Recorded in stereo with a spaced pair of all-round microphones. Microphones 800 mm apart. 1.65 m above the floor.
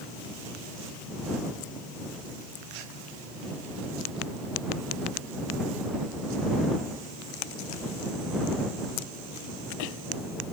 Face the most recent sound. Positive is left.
No sound to turn to.